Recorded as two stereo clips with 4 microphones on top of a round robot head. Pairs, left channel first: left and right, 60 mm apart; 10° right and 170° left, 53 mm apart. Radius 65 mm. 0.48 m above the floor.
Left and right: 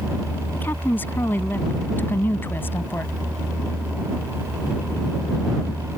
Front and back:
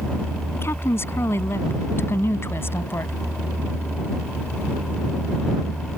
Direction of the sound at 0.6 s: 30° left.